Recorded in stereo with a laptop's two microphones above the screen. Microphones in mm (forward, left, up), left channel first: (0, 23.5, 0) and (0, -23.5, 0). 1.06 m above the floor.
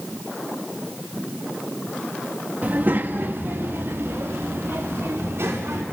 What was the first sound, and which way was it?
A child speaking, 35° right (ahead or behind).